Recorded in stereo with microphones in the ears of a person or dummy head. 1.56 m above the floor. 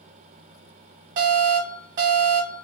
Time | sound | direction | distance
1.2 | an alarm | 55° right (ahead or behind) | 1.2 m